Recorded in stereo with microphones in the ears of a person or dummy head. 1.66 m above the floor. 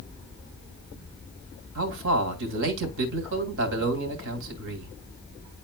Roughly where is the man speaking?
Right.